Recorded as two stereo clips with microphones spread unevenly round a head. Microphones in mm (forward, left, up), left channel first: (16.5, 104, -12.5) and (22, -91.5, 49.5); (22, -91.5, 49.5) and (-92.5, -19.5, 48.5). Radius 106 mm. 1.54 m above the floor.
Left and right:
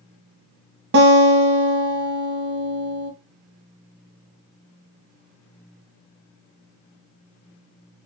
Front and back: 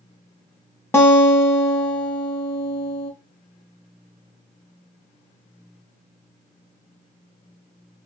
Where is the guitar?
105° right, 0.9 m.